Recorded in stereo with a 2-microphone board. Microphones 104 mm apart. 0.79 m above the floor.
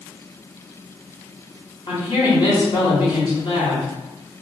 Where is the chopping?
No chopping in this recording.